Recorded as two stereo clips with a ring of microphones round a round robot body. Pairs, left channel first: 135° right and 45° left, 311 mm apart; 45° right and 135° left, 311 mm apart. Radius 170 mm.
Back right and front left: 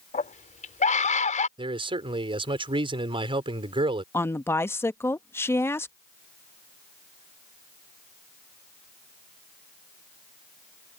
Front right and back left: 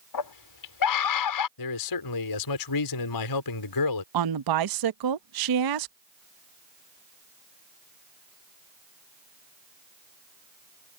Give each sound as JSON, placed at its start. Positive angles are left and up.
{"t": 0.1, "sound": "a scream", "azimuth_deg": -65}
{"t": 1.6, "sound": "a man speaking", "azimuth_deg": -30}
{"t": 4.1, "sound": "a woman speaking", "azimuth_deg": 140}